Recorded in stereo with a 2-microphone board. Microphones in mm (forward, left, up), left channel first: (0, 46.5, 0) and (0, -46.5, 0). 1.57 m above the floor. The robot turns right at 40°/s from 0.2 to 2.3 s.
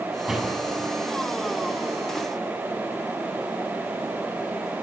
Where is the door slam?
10° right (ahead or behind), 8 m; by 0.9 s 15° left (ahead or behind), 8 m.